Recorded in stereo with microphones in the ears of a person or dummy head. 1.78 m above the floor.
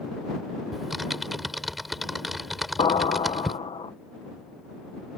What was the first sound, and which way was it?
Typing on a keyboard, centre (ahead or behind).